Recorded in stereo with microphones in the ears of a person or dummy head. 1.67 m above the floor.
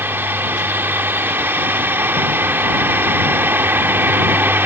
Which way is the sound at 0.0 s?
5° right (ahead or behind).